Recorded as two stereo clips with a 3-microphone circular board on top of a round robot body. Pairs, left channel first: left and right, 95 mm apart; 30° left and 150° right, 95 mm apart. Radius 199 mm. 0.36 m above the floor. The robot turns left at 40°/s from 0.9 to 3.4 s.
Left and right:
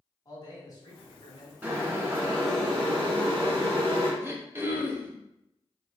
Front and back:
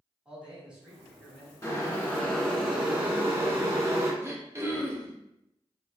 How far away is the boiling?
About 1.9 m.